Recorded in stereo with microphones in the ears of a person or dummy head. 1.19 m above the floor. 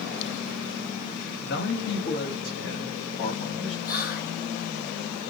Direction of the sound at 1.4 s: 50° left (ahead or behind).